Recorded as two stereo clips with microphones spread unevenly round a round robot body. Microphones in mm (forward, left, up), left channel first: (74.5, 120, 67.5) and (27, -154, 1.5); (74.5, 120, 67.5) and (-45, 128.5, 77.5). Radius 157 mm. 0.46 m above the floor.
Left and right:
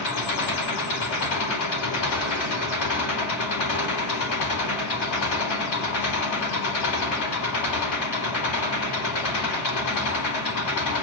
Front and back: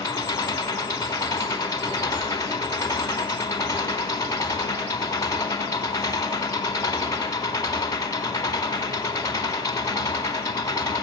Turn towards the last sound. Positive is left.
turn(degrees=60)